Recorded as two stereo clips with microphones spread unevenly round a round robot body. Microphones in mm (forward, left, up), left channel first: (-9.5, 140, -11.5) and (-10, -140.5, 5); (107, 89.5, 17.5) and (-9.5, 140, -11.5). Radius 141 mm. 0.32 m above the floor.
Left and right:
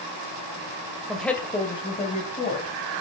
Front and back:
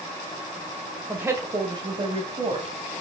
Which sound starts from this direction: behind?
A woman speaking, at 1.1 s.